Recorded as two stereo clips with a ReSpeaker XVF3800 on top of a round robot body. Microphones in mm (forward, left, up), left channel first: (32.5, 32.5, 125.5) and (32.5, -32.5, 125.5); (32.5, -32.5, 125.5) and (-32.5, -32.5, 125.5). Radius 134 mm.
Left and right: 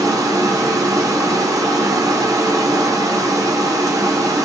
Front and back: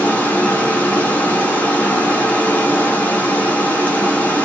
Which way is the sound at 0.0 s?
65° right.